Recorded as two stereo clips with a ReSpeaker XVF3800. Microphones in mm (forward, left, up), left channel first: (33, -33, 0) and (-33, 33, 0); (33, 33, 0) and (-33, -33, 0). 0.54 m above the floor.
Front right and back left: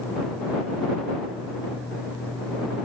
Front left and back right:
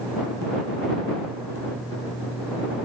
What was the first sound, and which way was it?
Only background noise.